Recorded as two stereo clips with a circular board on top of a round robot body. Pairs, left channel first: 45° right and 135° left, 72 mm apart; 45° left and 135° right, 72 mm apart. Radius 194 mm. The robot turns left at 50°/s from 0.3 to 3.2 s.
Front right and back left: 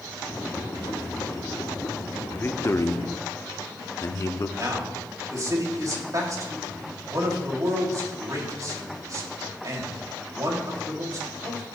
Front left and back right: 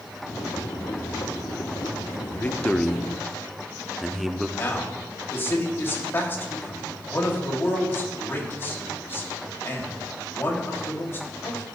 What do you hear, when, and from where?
2.3 s a man speaking: 5° right, 1.1 m; by 4.5 s 50° right, 1.1 m
4.6 s a man speaking: 100° left, 3 m